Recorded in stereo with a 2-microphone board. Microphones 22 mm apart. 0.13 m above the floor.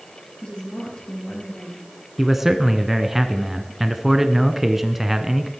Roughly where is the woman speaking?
Left.